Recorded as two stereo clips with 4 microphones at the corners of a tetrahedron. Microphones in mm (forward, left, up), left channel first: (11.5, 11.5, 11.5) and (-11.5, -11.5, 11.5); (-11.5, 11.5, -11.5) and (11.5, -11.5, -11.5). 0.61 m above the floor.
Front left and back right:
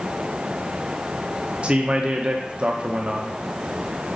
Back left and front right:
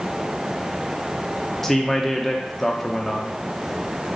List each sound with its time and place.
1.6 s a man speaking: 145° right, 0.6 m